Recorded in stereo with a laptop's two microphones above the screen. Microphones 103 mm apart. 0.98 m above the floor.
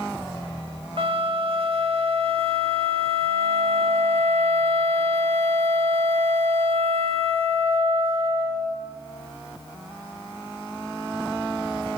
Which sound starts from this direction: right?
A flute, at 1.0 s.